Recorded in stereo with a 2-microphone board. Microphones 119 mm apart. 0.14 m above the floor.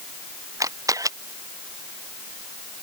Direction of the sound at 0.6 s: 30° right (ahead or behind).